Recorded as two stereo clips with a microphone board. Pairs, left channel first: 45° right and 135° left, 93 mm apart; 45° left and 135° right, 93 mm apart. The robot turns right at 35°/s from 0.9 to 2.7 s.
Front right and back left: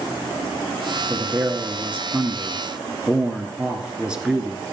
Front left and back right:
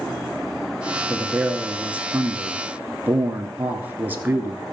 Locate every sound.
1.1 s a man speaking: 145° left, 1.2 m; by 4.6 s 160° right, 1.2 m